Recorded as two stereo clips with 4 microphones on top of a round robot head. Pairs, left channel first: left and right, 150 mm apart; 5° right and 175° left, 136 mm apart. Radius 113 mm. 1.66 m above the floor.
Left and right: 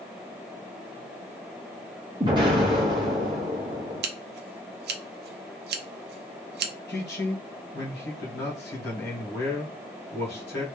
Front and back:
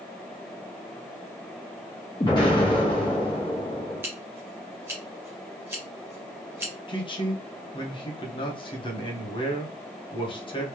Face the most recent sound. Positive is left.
turn(degrees=50)